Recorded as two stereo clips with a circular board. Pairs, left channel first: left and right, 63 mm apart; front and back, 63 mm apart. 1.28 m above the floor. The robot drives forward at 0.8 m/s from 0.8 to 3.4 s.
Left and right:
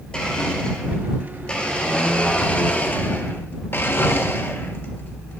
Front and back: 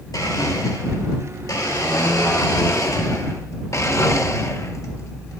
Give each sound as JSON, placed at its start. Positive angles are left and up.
{"t": 0.1, "sound": "a blender", "azimuth_deg": 15, "distance_m": 3.0}